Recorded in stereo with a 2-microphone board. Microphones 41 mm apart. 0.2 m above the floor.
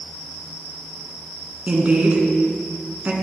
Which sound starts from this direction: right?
A woman speaking, at 1.7 s.